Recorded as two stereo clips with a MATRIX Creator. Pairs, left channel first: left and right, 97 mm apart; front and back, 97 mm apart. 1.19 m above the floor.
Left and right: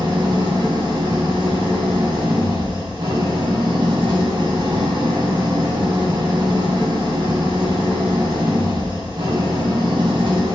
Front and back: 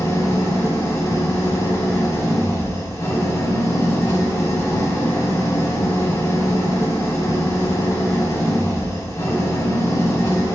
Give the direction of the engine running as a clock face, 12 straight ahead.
2 o'clock.